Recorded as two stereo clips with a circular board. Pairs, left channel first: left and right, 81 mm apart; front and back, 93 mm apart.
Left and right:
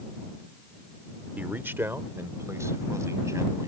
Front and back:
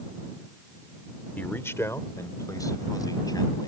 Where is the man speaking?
45° right; by 3.7 s 40° right.